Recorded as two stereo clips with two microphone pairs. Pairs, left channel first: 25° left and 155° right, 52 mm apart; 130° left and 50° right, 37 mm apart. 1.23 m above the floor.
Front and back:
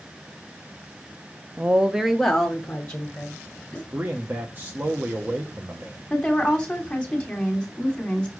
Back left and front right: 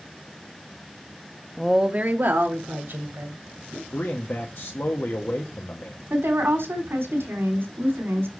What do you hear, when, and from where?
1.6 s a woman speaking: 160° right, 0.5 m; by 3.8 s 50° right, 2.5 m
3.9 s a man speaking: 150° left, 0.9 m
6.1 s a woman speaking: 55° right, 3 m